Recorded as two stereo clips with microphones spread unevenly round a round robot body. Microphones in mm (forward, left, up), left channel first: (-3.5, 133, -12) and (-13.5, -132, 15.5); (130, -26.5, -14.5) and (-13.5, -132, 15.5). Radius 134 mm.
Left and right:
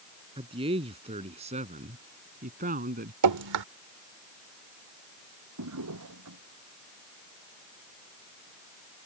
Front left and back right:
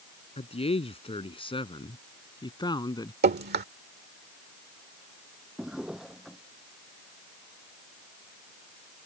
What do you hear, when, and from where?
0.4 s a man speaking: 20° right; by 3.1 s 35° right
3.2 s dripping: 115° right
5.6 s a drawer: 55° right